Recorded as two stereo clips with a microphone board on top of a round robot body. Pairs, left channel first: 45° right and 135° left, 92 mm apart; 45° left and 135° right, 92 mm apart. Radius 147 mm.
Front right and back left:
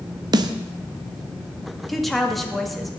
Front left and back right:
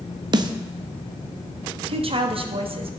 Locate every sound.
0.3 s a snare drum: straight behind, 0.6 m
1.9 s a woman speaking: 135° right, 1.7 m